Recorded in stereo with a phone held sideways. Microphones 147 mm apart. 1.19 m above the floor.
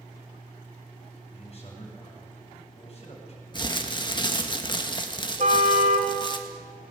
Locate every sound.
1.3 s a man speaking: 45° left (ahead or behind), 7 m
3.5 s crumpling: 30° left (ahead or behind), 1.6 m
5.4 s a car horn: 55° right (ahead or behind), 3 m